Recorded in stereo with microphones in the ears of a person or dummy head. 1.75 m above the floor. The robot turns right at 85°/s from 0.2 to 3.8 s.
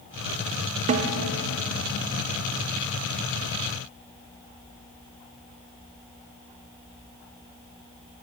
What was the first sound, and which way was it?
A snare drum, 25° right (ahead or behind).